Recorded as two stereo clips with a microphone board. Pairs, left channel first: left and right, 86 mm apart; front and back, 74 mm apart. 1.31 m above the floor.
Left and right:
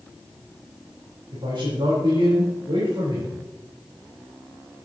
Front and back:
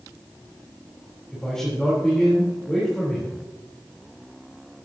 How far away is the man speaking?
About 4 m.